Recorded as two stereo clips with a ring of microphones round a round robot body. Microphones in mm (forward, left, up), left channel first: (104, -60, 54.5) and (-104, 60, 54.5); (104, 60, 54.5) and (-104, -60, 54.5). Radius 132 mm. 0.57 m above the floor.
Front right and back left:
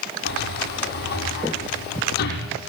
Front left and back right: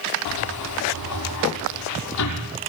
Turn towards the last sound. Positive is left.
turn(degrees=20)